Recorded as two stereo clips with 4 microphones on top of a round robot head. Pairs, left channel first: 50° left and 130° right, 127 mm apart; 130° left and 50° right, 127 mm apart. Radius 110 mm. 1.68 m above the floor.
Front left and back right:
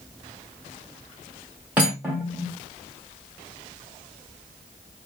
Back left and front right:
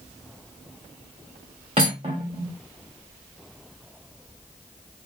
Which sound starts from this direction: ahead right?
Cutlery clinking, at 1.8 s.